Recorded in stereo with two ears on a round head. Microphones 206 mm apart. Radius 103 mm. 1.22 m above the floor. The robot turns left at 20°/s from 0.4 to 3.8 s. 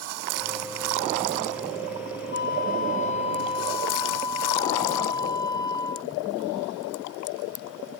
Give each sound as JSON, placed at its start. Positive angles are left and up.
{"t": 2.3, "sound": "a flute", "side_deg": 45}